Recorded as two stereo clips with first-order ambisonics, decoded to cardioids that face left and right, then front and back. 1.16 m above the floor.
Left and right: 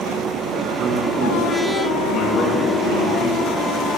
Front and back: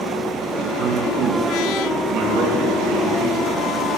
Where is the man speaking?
130° right, 1.0 m; by 3.6 s 130° left, 2.5 m.